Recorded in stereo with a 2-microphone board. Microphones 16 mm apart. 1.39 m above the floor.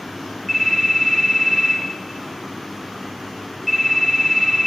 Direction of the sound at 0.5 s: 5° right (ahead or behind).